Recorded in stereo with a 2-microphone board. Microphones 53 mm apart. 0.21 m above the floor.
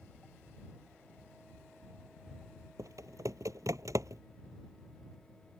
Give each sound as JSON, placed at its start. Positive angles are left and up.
{"t": 2.8, "sound": "typing on a keyboard", "side_deg": -80}